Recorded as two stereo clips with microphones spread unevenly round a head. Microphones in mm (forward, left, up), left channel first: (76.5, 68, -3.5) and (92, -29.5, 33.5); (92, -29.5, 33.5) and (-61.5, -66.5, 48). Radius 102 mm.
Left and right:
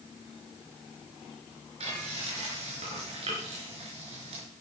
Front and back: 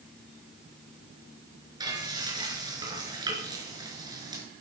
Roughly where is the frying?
Right.